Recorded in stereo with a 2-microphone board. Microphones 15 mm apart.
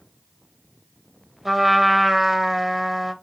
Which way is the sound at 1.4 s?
20° right (ahead or behind).